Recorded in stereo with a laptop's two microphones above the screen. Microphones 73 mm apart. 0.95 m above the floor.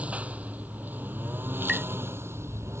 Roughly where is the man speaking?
I don't hear a man speaking.